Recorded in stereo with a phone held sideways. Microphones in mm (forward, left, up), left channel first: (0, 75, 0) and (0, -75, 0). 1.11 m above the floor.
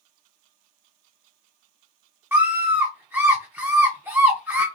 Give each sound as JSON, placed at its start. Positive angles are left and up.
{"t": 2.3, "sound": "a scream", "side_deg": -15, "distance_m": 0.6}